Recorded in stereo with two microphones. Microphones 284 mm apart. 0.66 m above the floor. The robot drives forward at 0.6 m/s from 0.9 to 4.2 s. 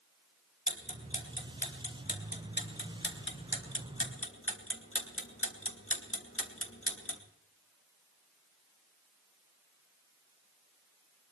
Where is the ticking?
25° left (ahead or behind), 3.5 m; by 7.2 s 50° left (ahead or behind), 2 m.